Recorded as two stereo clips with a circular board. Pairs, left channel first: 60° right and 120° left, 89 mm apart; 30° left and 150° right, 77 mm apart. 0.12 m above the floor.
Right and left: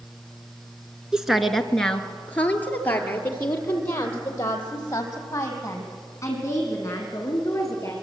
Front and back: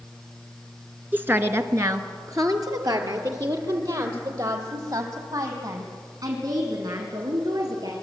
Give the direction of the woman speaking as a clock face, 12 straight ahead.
6 o'clock.